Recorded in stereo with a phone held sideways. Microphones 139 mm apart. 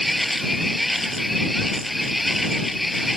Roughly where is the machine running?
Centre.